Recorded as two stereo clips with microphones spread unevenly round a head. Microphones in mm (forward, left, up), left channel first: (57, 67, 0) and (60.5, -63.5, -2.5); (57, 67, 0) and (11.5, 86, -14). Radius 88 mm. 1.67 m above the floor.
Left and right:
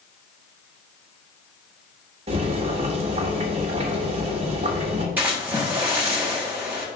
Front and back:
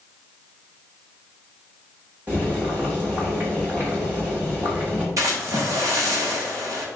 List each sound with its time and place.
2.3 s boiling: 125° right, 1.3 m
5.2 s a splash: 170° right, 1.1 m